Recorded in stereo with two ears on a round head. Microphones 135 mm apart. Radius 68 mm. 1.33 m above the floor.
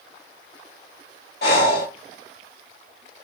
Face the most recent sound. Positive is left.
turn(degrees=75)  # may be behind; listen again after turning